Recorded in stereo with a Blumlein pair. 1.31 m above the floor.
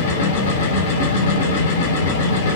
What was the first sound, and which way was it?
A machine running, 55° left.